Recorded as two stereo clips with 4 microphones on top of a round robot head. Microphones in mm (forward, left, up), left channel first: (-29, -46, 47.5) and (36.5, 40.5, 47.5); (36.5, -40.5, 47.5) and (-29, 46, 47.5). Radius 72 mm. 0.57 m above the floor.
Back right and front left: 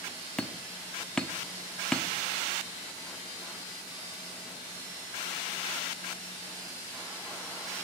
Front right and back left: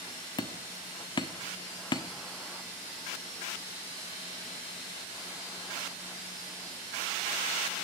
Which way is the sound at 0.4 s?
50° right.